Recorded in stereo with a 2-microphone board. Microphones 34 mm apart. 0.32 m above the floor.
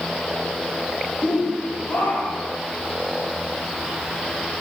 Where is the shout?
70° left (ahead or behind), 7 m.